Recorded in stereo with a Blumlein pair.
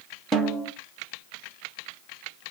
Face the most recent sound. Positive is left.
turn(degrees=-10)